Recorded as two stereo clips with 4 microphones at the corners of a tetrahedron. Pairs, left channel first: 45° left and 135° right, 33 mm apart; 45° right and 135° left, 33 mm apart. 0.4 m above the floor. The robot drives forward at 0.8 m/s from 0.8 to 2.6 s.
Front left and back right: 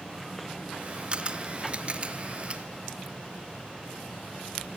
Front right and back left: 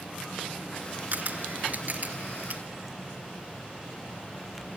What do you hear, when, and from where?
1.1 s a camera shutter: 170° left, 1.5 m; by 2.6 s 175° left, 2.5 m